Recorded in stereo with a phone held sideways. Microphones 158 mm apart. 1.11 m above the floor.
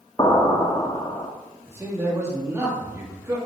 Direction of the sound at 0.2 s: 30° left (ahead or behind).